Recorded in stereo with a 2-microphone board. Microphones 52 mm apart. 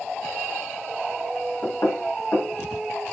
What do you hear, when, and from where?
1.6 s knocking: 75° left (ahead or behind), 2.5 m